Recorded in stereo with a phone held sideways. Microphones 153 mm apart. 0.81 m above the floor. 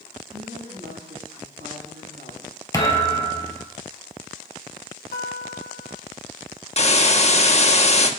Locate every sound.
0.3 s a woman speaking: 85° right, 7 m
2.7 s a thud: 20° left (ahead or behind), 2 m
5.1 s a guitar: 80° left, 1.2 m
6.8 s a hiss: 45° left (ahead or behind), 1.2 m